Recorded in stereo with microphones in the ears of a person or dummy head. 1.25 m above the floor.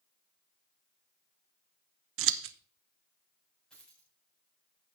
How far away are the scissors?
About 0.7 m.